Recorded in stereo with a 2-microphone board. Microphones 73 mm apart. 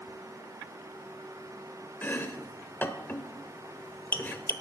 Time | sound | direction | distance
2.0 | chopping | 25° left (ahead or behind) | 1.0 m